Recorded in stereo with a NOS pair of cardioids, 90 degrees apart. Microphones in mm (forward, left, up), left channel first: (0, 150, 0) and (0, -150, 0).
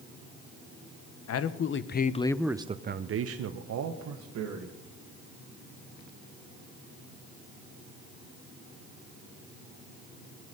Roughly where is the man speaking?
Ahead left.